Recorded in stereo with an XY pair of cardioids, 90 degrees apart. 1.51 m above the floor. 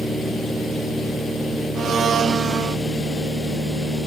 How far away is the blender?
About 0.9 m.